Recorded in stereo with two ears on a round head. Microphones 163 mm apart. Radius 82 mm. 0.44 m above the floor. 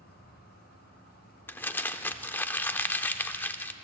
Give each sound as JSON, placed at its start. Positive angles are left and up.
{"t": 0.0, "sound": "an insect", "side_deg": 55, "distance_m": 3.5}
{"t": 1.5, "sound": "crumpling", "side_deg": 10, "distance_m": 0.6}